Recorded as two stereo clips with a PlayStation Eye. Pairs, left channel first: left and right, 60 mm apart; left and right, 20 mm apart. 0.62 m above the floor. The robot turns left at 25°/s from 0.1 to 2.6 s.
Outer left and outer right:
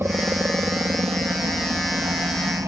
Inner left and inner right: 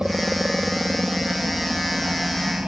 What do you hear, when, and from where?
0.0 s a helicopter: 40° right (ahead or behind); by 2.7 s 60° right (ahead or behind)